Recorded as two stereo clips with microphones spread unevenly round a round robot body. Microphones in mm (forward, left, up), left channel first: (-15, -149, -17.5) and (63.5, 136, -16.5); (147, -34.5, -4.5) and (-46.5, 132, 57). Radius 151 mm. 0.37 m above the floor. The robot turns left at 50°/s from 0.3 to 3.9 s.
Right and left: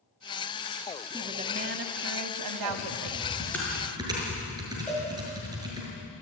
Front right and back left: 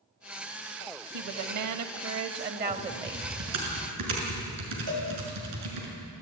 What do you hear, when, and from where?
1.1 s a woman speaking: 155° left, 1.9 m; by 3.3 s 45° left, 1.9 m
2.7 s typing on a keyboard: 145° right, 6 m; by 5.9 s 155° left, 6 m
4.9 s a cowbell: 165° left, 6.5 m